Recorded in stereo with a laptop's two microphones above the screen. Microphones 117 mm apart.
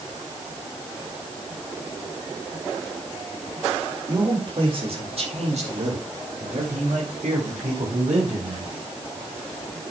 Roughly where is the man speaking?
Right.